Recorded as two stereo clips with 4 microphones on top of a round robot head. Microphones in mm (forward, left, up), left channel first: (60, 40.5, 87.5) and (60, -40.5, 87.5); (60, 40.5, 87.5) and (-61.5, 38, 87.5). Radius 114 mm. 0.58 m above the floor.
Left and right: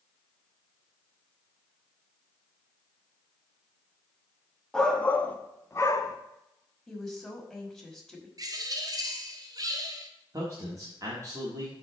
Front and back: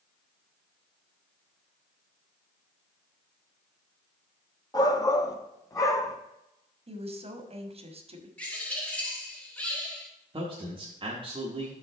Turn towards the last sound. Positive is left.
turn(degrees=-135)